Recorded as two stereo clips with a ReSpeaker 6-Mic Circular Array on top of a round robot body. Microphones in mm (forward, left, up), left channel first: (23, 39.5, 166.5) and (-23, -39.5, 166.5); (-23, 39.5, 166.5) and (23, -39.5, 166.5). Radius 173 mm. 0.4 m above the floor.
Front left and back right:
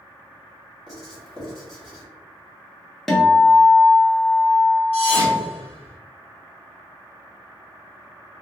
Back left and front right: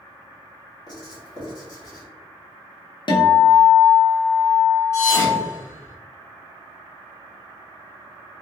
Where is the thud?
60° left, 1.1 m.